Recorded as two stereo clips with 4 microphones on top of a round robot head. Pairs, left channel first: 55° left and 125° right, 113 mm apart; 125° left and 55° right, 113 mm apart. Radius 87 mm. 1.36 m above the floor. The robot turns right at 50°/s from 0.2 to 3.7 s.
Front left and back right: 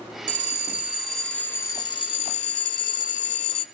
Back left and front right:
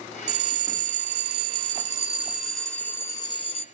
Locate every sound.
0.3 s a bell: 80° right, 1.0 m; by 3.6 s 90° left, 1.0 m